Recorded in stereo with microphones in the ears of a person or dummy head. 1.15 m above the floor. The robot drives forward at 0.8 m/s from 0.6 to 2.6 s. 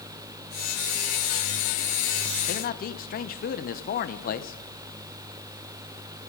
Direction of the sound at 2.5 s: 50° left (ahead or behind).